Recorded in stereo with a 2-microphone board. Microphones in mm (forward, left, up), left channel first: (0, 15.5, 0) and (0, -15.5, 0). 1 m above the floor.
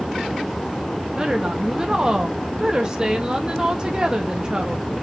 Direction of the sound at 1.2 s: 25° right (ahead or behind).